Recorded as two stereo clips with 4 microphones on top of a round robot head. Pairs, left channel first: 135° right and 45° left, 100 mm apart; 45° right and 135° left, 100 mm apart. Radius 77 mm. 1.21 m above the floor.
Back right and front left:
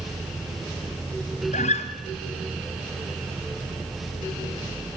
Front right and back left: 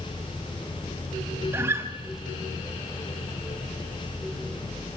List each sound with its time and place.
1.5 s a guitar: 155° right, 2.0 m